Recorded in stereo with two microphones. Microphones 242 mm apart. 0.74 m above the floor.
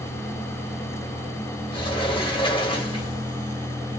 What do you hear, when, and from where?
1.7 s a sliding door: 20° left (ahead or behind), 1.0 m